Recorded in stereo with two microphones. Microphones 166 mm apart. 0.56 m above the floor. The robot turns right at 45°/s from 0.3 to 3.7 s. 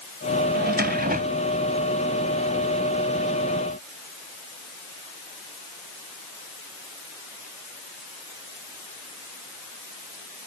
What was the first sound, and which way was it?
A drawer, 90° right.